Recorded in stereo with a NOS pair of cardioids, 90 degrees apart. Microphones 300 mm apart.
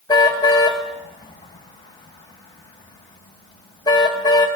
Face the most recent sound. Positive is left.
turn(degrees=15)